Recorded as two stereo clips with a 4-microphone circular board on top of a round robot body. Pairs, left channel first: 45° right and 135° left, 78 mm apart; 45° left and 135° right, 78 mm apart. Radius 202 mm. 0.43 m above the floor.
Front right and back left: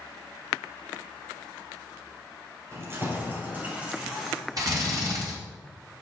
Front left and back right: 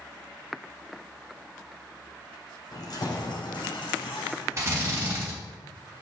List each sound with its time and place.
2.7 s keys jangling: 80° left, 1.8 m; by 4.7 s 50° left, 3 m
4.6 s a drill: 170° left, 3.5 m